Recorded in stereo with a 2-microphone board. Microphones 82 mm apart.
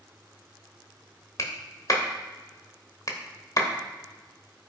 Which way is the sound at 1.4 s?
45° left (ahead or behind).